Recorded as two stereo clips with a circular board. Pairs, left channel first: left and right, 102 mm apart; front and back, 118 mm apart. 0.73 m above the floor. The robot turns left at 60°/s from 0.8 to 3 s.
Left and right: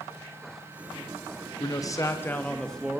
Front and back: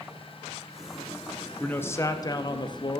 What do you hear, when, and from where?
1.6 s a man speaking: 70° left, 0.5 m; by 3.0 s 10° right, 0.5 m